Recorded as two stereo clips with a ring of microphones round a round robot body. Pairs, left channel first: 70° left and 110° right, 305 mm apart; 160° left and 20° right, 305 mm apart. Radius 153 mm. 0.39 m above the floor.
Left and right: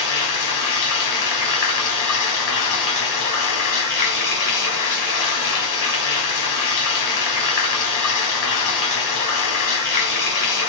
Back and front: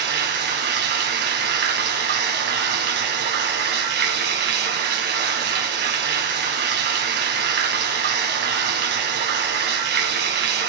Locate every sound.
0.0 s running water: 35° left, 1.6 m